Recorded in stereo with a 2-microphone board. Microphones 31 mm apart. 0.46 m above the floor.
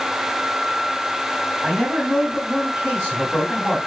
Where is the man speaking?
40° right (ahead or behind), 2.5 m.